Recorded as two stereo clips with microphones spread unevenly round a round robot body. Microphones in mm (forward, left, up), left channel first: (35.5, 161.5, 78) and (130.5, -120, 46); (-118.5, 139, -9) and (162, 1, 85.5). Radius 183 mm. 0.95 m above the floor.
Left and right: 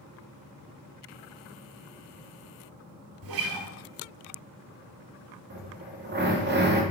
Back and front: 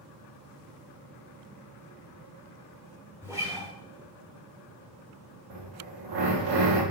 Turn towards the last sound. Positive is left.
turn(degrees=-20)